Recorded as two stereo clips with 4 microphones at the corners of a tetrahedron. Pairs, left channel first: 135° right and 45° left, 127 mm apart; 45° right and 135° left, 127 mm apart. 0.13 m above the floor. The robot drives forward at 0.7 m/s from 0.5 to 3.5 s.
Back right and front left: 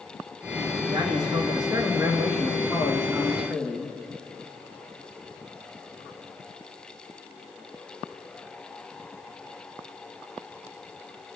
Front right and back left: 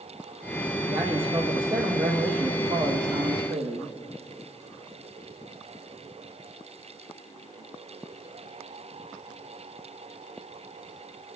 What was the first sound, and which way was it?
A man speaking, 90° left.